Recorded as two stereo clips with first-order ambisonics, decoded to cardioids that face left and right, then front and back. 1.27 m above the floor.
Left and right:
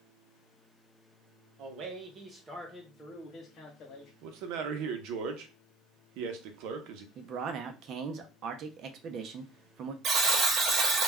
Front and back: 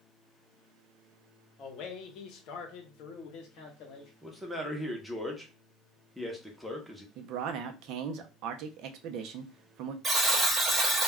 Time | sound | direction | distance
1.6 | a man speaking | 55° right | 0.8 m
4.2 | a man speaking | 90° right | 0.7 m
7.2 | a man speaking | 140° right | 0.5 m
10.0 | a buzzer | 115° right | 0.7 m